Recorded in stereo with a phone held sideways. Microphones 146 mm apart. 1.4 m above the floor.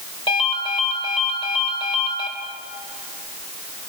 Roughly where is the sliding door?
No sliding door in this recording.